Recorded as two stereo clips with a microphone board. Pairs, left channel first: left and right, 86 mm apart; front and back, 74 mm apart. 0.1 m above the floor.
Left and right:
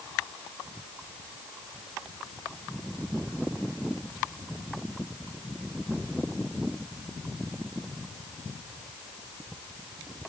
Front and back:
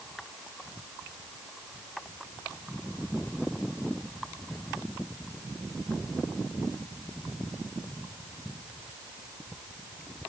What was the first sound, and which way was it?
Only background noise.